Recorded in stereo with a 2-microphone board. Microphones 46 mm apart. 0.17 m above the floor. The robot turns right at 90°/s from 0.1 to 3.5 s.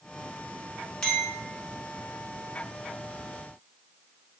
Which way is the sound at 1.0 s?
15° left (ahead or behind).